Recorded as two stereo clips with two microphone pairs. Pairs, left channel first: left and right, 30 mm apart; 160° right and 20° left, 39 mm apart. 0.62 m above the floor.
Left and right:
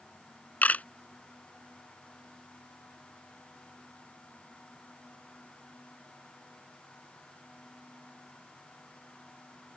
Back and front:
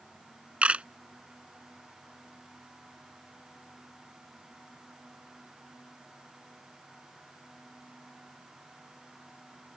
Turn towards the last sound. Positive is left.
turn(degrees=70)